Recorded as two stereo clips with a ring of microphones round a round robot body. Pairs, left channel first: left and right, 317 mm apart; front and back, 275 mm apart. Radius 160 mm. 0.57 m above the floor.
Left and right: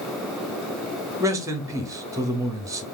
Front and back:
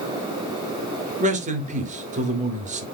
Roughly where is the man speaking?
Behind.